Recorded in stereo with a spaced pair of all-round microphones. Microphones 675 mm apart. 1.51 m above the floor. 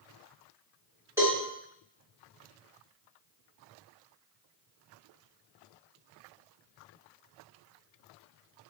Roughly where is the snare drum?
I don't hear a snare drum.